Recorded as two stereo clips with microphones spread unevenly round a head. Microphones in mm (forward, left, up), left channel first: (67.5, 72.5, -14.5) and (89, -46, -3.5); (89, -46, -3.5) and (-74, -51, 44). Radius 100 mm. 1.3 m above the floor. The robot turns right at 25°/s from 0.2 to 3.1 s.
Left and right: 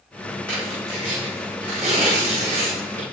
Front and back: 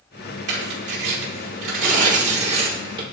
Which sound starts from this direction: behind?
Tearing paper, at 0.5 s.